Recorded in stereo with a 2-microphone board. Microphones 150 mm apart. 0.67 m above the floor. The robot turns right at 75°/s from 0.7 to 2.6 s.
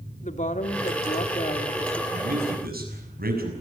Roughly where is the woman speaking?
Left.